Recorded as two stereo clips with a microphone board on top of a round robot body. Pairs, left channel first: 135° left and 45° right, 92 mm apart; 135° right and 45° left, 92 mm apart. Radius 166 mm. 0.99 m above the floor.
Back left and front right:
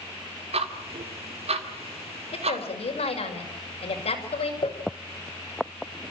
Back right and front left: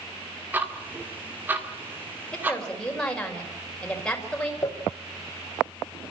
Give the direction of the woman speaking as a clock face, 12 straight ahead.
7 o'clock.